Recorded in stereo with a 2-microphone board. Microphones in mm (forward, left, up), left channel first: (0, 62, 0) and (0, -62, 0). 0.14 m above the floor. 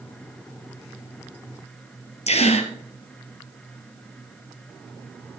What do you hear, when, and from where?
2.3 s a gasp: 60° left (ahead or behind), 1.5 m